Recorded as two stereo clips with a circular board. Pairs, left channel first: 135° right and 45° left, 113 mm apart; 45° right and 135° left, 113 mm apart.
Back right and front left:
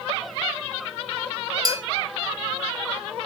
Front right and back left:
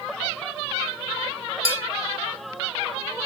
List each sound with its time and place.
1.6 s a bell: 100° left, 1.1 m